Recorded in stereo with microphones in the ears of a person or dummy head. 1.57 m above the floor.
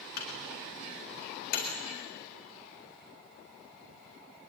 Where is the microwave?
65° left (ahead or behind), 4 m.